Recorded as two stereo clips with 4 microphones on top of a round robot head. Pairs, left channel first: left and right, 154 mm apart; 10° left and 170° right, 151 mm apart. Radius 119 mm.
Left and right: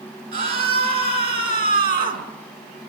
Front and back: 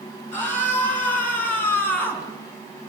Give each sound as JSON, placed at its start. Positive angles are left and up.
{"t": 0.3, "sound": "a scream", "azimuth_deg": -70, "distance_m": 8.0}